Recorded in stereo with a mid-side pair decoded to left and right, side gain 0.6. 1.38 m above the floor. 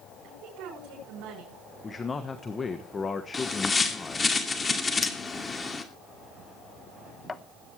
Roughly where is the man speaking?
Ahead left.